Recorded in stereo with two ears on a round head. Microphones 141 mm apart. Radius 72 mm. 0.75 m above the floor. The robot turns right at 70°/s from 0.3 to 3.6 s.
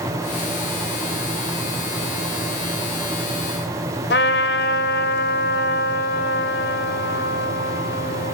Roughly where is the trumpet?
Left.